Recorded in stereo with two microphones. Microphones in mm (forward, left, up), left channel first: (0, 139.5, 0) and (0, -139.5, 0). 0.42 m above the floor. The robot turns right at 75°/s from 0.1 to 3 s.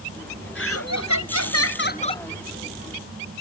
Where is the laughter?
45° left; by 2.2 s 170° left.